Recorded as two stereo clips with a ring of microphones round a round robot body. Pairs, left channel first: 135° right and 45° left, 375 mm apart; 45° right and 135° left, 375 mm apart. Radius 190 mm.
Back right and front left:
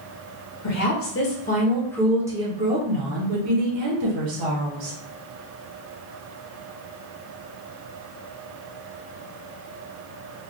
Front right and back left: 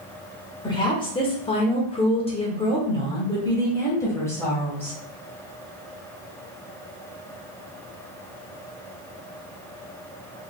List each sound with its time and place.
0.6 s a woman speaking: 120° right, 1.4 m; by 5.0 s 40° left, 2 m